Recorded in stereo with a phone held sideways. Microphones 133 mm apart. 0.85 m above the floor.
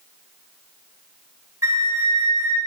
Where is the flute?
25° right (ahead or behind), 0.9 m.